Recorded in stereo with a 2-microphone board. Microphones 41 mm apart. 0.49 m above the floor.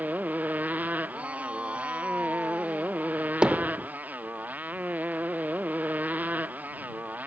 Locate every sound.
0.0 s a motorcycle: 45° right (ahead or behind)
1.1 s a shout: 30° right (ahead or behind)
3.4 s hammering: 25° right (ahead or behind)